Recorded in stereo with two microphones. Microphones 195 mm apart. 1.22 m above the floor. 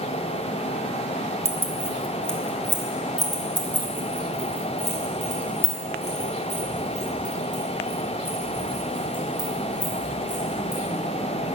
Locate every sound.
1.4 s keys jangling: 15° right (ahead or behind), 1.1 m; by 10.8 s 45° left (ahead or behind), 5.5 m